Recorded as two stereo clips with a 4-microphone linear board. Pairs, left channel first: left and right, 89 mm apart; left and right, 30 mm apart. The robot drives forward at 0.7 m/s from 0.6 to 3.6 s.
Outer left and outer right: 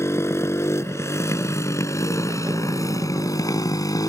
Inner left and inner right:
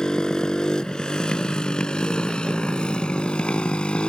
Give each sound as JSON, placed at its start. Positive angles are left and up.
{"t": 0.0, "sound": "a motorcycle", "side_deg": 35}